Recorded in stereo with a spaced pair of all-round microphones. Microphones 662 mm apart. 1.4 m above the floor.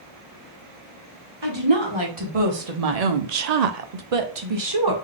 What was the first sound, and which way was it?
A woman speaking, 40° right (ahead or behind).